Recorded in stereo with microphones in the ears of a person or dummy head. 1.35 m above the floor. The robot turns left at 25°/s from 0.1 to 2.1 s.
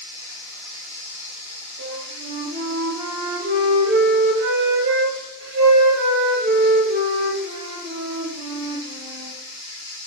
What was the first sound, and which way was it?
Running water, 170° left.